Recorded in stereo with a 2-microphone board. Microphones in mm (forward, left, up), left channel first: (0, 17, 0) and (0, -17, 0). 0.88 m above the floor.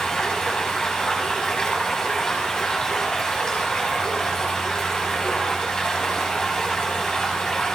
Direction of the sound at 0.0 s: 20° left (ahead or behind).